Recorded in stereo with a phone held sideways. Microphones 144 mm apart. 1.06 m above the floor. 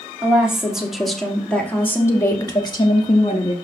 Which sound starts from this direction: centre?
A woman speaking, at 0.2 s.